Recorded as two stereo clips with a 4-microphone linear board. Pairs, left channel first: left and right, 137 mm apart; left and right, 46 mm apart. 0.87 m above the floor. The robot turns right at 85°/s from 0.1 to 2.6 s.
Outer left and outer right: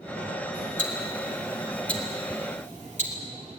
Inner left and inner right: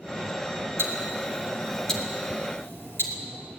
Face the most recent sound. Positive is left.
turn(degrees=65)  # may be behind; listen again after turning